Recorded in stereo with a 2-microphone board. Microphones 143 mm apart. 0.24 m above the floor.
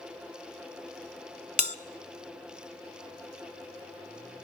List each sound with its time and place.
1.6 s a bell: 60° left (ahead or behind), 0.7 m